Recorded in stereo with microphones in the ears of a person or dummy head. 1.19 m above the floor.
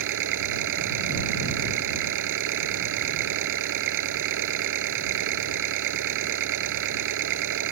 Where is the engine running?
55° right (ahead or behind).